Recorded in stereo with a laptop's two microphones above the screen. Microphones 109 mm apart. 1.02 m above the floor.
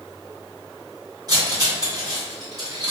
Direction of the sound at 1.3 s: 35° right (ahead or behind).